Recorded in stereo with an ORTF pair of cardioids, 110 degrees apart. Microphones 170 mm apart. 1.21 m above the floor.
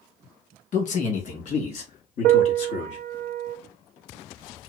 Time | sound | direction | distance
0.7 | a man speaking | 50° left | 1.7 m
2.2 | a piano | 70° right | 0.6 m